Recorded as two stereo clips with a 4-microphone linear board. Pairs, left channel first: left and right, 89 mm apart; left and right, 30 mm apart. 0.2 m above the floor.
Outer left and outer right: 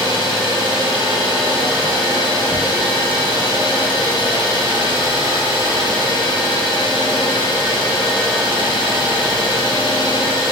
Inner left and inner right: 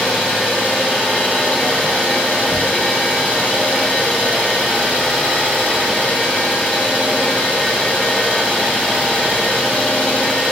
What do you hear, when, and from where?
0.0 s an engine running: 65° left (ahead or behind), 1.1 m